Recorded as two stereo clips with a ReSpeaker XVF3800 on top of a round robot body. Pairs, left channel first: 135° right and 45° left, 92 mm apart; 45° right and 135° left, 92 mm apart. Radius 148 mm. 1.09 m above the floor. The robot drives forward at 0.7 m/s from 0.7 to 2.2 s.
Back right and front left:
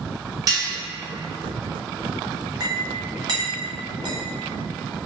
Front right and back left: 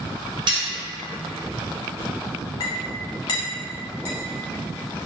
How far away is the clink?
About 0.6 m.